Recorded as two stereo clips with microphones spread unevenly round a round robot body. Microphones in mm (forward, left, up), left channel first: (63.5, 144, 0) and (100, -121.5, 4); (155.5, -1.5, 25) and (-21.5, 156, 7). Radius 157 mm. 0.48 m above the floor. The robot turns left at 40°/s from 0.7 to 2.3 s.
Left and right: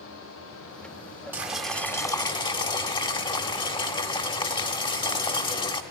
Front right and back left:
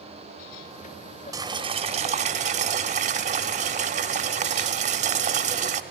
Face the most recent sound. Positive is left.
turn(degrees=160)